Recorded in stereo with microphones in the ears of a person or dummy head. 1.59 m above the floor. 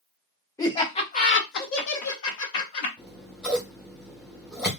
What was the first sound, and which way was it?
Laughter, 15° left (ahead or behind).